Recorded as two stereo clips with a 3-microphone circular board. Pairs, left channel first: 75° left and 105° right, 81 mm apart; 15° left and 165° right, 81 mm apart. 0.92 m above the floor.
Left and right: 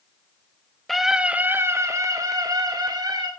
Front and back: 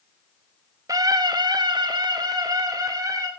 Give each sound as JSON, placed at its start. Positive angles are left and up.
{"t": 0.9, "sound": "a scream", "azimuth_deg": 160, "distance_m": 1.3}